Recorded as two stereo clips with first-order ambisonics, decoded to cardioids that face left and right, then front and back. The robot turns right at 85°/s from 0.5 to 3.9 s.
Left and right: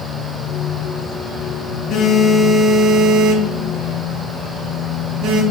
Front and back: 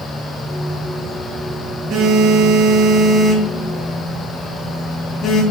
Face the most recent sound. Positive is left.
turn(degrees=-60)